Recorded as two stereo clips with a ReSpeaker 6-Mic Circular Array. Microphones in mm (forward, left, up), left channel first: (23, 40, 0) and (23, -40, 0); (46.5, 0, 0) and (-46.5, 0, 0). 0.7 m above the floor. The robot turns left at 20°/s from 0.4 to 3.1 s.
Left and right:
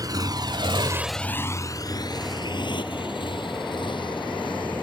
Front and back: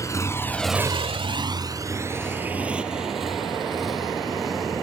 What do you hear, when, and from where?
0.0 s a motorcycle: 50° right; by 4.8 s 90° left